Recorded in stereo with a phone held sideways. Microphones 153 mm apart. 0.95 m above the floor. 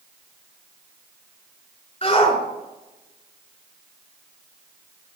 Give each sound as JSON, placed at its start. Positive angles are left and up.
{"t": 2.0, "sound": "a shout", "side_deg": 40, "distance_m": 3.5}